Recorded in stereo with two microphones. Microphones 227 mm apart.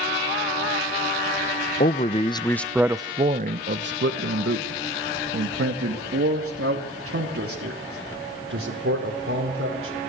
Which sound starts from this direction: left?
A man speaking, at 1.8 s.